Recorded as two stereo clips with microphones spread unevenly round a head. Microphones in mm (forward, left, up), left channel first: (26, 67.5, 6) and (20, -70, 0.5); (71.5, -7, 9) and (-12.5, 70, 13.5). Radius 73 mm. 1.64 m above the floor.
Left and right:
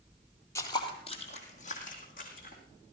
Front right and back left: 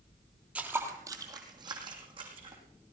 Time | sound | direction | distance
0.6 | footsteps | 85° left | 1.7 m